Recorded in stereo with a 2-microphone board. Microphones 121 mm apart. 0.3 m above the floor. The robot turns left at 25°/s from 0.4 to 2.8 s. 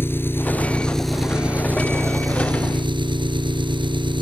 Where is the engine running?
20° left; by 4.2 s 40° right.